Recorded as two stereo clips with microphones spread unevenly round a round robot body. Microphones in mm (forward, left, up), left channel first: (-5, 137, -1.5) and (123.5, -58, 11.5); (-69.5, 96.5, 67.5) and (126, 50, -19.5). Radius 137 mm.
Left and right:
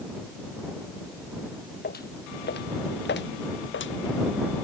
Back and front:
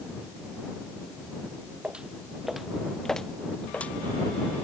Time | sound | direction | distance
1.8 | footsteps | 75° left | ?